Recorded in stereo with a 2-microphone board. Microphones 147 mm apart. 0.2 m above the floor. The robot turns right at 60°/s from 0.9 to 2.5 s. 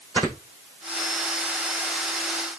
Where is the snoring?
30° right (ahead or behind), 6 m.